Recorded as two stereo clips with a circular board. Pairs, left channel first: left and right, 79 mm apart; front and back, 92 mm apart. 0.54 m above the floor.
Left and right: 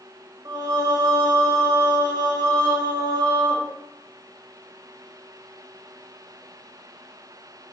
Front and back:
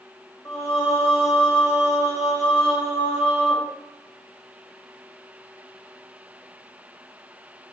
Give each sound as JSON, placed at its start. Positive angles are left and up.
{"t": 0.5, "sound": "singing", "azimuth_deg": -60, "distance_m": 0.9}